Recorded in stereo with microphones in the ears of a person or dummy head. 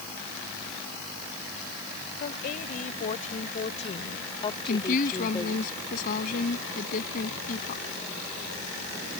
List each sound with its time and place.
2.2 s a woman speaking: 50° left (ahead or behind); by 5.7 s 15° left (ahead or behind)
4.7 s a woman speaking: 45° left (ahead or behind)